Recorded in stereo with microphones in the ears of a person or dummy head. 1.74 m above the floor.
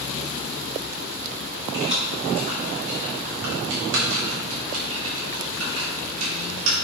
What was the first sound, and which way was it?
Keys jangling, 30° right (ahead or behind).